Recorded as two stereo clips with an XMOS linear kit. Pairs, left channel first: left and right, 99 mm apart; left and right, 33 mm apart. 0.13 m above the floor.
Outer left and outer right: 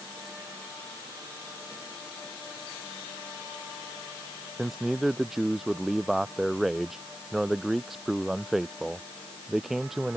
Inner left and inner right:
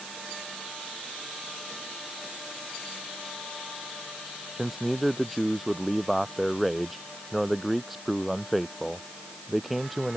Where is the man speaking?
Centre (ahead or behind).